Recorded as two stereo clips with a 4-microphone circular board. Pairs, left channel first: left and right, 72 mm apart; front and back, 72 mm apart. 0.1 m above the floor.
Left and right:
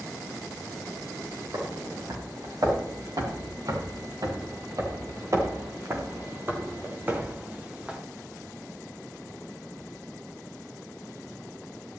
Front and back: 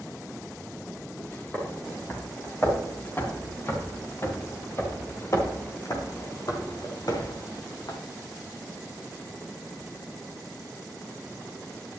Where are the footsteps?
65° right, 5.5 m; by 8.0 s 15° right, 2.5 m.